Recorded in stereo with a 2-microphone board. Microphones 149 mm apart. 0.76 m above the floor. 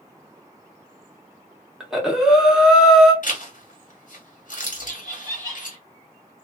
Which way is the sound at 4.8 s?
15° right (ahead or behind).